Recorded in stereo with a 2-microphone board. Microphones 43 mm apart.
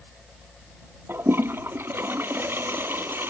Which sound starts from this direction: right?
A toilet flushing, at 1.1 s.